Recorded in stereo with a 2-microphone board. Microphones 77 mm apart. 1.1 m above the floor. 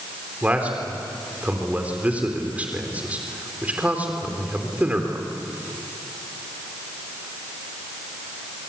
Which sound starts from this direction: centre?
A man speaking, at 0.4 s.